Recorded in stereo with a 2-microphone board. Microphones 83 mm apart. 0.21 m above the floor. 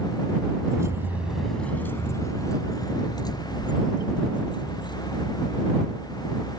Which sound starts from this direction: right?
Keys jangling, at 0.7 s.